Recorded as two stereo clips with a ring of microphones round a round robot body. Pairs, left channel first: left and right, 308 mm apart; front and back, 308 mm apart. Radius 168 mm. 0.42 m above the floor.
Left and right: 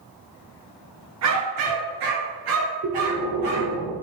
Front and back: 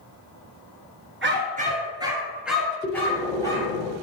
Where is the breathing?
90° right, 1.5 m.